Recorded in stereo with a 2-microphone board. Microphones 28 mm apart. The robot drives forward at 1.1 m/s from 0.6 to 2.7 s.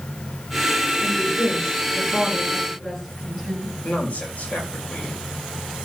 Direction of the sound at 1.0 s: 20° left (ahead or behind).